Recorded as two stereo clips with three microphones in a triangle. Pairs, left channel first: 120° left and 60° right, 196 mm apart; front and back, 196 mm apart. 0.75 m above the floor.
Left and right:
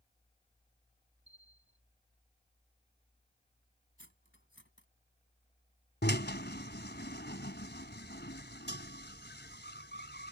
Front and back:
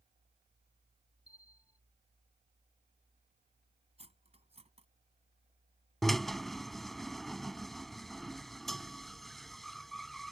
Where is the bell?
75° right.